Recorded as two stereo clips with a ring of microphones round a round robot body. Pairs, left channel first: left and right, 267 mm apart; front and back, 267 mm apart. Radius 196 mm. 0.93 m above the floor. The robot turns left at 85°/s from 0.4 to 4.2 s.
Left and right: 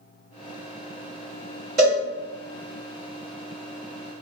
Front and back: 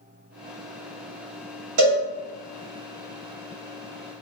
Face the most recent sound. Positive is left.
turn(degrees=0)